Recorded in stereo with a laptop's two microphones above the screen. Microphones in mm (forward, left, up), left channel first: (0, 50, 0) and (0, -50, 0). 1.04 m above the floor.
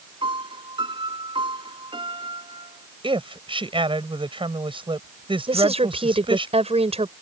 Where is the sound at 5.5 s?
80° right.